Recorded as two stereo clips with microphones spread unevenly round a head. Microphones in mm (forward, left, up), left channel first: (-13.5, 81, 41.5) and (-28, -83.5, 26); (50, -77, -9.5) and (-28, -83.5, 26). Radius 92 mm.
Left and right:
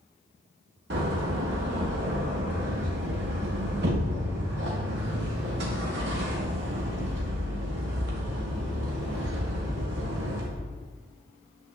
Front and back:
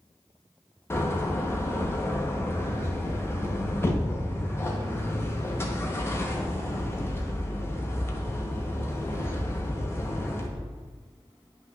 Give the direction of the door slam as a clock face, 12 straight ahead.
2 o'clock.